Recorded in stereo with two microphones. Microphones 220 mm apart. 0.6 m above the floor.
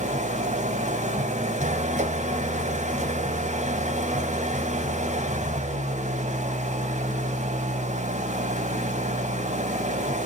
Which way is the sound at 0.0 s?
35° right (ahead or behind).